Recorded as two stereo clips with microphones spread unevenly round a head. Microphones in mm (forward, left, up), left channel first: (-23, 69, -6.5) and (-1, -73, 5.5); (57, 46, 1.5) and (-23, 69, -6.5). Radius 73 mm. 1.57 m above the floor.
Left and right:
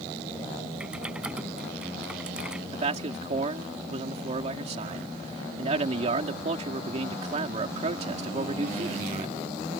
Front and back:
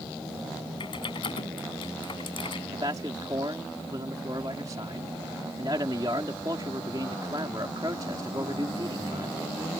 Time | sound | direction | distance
0.8 | typing on a keyboard | 5° left | ?
2.7 | a man speaking | 130° right | ?